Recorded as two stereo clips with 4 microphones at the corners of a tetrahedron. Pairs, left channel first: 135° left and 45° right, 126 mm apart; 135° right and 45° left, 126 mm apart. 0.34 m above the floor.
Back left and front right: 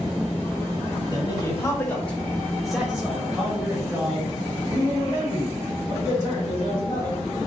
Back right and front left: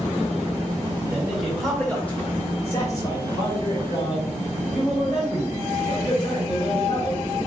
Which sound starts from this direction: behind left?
A man speaking, at 1.1 s.